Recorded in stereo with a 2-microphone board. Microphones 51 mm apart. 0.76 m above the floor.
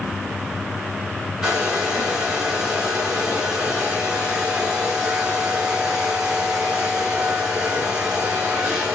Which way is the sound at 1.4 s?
15° right (ahead or behind).